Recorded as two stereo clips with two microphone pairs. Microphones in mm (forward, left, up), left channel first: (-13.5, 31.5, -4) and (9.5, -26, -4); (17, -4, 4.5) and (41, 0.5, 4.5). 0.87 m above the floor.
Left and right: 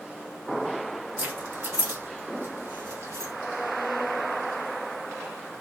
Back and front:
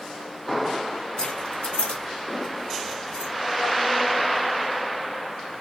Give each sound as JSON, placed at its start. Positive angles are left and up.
{"t": 1.2, "sound": "keys jangling", "azimuth_deg": -125, "distance_m": 1.4}